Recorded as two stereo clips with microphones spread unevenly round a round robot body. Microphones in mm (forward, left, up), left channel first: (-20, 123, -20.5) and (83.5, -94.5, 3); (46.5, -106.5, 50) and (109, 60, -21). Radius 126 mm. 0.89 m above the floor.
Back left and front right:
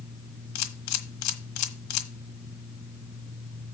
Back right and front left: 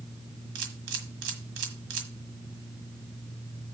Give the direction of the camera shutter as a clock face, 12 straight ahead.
8 o'clock.